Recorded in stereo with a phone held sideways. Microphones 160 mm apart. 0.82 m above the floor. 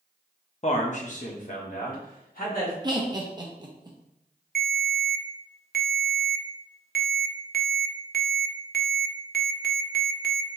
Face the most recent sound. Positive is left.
turn(degrees=-75)  # may be behind; listen again after turning